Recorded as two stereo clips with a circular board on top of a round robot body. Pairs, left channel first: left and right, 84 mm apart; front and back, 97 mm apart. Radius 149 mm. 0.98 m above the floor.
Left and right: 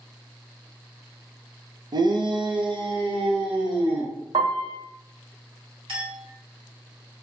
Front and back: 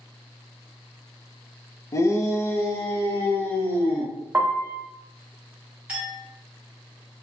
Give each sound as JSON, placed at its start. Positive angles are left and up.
{"t": 1.9, "sound": "a shout", "azimuth_deg": -55, "distance_m": 0.6}
{"t": 4.3, "sound": "a piano", "azimuth_deg": -110, "distance_m": 0.7}
{"t": 5.9, "sound": "a clink", "azimuth_deg": -100, "distance_m": 1.5}